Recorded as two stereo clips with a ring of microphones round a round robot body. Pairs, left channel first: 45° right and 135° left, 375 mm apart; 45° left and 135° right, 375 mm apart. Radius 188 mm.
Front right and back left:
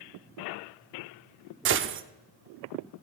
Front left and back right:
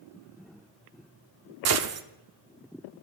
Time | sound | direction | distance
1.6 | a gunshot | 175° right | 0.7 m